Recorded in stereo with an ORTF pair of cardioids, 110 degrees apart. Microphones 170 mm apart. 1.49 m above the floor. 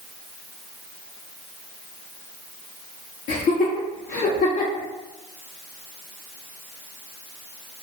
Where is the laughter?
55° left, 0.7 m.